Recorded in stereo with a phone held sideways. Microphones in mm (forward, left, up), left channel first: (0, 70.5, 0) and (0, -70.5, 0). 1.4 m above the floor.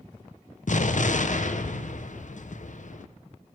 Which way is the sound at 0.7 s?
65° left (ahead or behind).